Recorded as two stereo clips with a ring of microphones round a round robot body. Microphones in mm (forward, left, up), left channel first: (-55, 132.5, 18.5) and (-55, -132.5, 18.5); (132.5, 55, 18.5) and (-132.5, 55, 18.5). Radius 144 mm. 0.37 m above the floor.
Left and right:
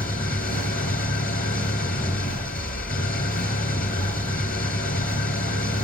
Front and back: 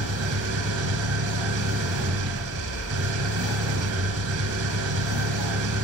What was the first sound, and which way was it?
An engine running, 150° left.